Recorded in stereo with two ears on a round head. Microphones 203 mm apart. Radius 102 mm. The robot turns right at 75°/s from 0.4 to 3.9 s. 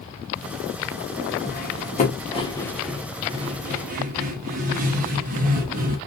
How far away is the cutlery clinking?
About 0.6 m.